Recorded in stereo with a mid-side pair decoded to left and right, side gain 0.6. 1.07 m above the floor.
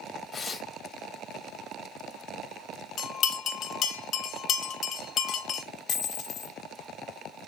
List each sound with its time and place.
0.3 s tearing paper: 25° left, 1.5 m
3.0 s a bell: 50° left, 0.7 m
5.9 s a dropped coin: 50° left, 1.3 m